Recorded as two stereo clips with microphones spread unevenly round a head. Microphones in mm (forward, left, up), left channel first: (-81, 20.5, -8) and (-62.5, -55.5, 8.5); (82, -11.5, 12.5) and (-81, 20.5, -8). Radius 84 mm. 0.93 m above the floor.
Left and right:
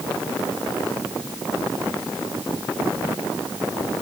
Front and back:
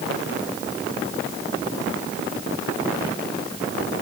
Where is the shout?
I don't hear a shout.